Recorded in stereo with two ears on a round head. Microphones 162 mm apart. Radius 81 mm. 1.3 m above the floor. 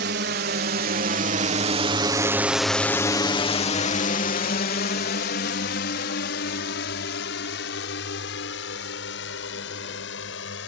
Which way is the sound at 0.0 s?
65° right (ahead or behind).